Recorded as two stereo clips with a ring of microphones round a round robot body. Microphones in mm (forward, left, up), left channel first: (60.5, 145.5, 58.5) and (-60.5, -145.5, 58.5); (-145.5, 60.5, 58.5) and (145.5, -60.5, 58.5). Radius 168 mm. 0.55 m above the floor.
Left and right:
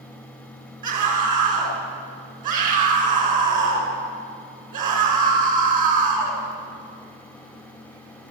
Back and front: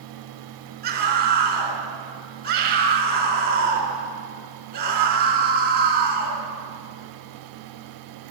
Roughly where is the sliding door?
I don't hear a sliding door.